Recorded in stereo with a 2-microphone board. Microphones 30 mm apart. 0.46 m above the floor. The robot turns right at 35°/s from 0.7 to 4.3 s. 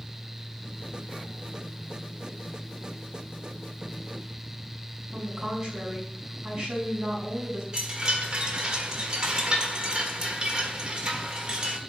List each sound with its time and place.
5.1 s a woman speaking: 15° right (ahead or behind), 4.5 m
7.7 s a chime: 25° right (ahead or behind), 1.5 m